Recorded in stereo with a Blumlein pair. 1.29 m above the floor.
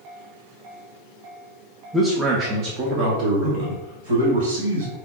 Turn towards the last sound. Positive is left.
turn(degrees=-60)